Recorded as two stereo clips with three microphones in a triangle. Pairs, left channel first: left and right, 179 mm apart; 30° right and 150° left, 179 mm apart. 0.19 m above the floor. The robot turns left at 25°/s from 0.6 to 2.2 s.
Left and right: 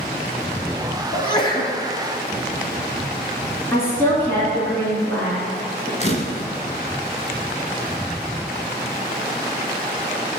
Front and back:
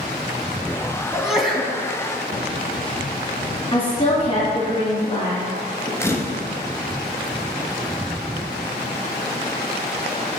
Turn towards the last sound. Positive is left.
turn(degrees=45)